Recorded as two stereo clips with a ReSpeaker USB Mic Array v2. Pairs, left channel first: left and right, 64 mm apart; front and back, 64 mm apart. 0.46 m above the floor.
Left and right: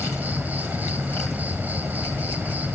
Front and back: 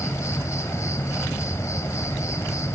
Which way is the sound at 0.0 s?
30° right.